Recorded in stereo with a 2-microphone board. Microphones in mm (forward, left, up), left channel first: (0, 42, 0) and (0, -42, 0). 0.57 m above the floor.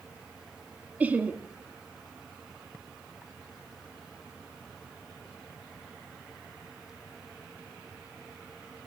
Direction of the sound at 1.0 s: 20° right (ahead or behind).